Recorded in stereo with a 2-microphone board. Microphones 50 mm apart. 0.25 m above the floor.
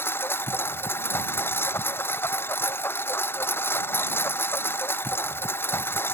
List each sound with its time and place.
0.0 s a lawn mower: 55° left (ahead or behind)